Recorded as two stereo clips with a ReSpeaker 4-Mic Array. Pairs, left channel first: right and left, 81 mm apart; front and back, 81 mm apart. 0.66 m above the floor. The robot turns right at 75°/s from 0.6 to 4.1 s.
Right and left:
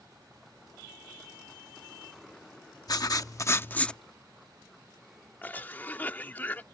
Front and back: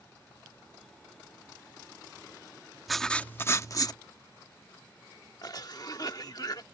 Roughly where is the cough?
Ahead right.